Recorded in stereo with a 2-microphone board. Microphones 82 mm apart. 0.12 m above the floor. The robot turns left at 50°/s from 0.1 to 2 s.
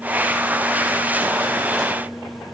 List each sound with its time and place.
Only background noise.